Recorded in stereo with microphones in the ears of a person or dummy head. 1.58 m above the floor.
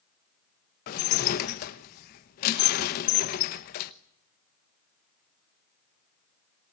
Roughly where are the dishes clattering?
Left.